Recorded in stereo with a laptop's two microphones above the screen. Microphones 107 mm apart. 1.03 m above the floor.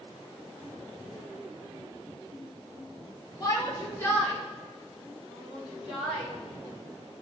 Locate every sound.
3.4 s a shout: 35° left (ahead or behind), 1.2 m; by 6.3 s centre (ahead or behind), 3.5 m